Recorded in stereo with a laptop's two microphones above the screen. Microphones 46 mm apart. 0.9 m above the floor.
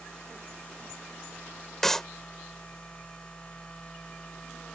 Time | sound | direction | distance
0.0 | a machine running | 25° left (ahead or behind) | ?
1.8 | a clap | 10° left (ahead or behind) | ?